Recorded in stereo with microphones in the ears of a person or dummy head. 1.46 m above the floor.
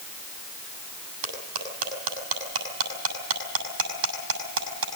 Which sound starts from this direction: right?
Cutlery clinking, at 1.2 s.